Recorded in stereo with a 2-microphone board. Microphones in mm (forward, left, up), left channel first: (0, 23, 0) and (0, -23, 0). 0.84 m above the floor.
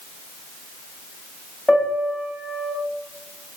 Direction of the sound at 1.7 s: 15° left (ahead or behind).